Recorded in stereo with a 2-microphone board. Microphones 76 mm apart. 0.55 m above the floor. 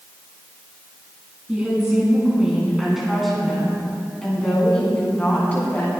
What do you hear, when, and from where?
1.5 s a woman speaking: 15° right (ahead or behind), 5 m; by 5.9 s 25° left (ahead or behind), 4 m